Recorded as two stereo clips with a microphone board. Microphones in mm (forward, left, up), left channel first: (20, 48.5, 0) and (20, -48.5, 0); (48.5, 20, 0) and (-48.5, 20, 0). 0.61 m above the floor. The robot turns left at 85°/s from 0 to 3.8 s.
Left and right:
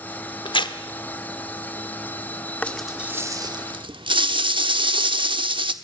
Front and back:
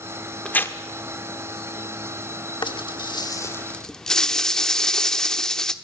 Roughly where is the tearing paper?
Left.